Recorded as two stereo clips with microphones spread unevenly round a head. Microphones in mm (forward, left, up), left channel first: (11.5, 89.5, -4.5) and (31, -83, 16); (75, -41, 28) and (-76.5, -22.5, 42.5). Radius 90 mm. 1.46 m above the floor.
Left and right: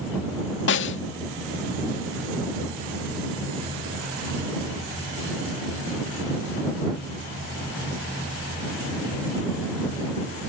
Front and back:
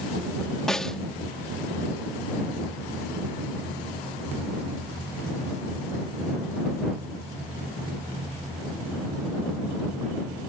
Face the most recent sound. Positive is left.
turn(degrees=85)